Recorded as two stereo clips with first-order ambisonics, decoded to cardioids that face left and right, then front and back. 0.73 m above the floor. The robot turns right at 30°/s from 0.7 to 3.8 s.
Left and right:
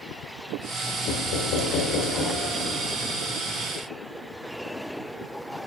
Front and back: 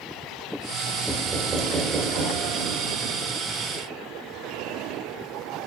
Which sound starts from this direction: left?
Knocking, at 1.1 s.